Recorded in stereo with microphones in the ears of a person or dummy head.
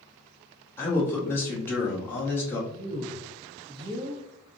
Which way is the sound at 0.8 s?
10° left (ahead or behind).